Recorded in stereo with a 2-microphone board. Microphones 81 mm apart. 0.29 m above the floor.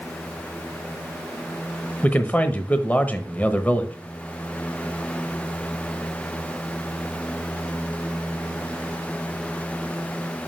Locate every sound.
2.0 s a man speaking: 20° left (ahead or behind), 1.0 m